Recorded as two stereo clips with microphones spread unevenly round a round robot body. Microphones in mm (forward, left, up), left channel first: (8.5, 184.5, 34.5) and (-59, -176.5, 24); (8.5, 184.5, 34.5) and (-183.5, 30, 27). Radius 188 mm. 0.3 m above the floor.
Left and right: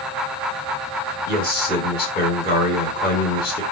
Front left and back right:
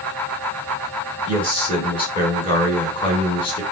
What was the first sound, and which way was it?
A man speaking, 75° left.